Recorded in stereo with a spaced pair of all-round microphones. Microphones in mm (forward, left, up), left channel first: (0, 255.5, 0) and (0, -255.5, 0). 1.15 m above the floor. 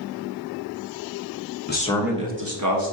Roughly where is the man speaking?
Left.